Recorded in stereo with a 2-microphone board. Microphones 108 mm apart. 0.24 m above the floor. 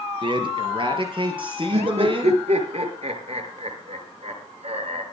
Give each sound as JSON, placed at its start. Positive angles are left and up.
{"t": 0.2, "sound": "a man speaking", "side_deg": -45, "distance_m": 4.0}
{"t": 1.7, "sound": "laughter", "side_deg": -70, "distance_m": 5.0}